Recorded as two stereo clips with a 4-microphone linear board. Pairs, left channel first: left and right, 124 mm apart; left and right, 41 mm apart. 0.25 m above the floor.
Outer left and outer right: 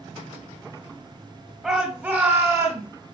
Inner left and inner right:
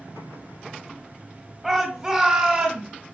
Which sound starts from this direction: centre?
A shout, at 1.6 s.